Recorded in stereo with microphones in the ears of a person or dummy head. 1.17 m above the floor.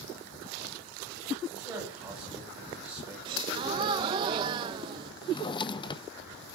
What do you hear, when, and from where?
1.5 s a man speaking: 20° right (ahead or behind), 9.5 m
3.2 s a gasp: 25° right (ahead or behind), 0.6 m
5.2 s a drawer: 35° left (ahead or behind), 0.5 m